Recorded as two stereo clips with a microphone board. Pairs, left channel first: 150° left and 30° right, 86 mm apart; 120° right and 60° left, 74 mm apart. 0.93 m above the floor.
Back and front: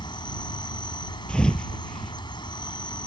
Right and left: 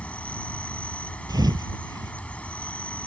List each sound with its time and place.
0.0 s an insect: 165° left
1.3 s a thud: 70° left